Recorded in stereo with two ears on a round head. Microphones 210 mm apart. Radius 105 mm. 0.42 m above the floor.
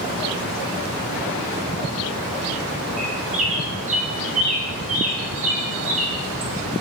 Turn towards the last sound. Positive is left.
turn(degrees=-30)  # may be behind; listen again after turning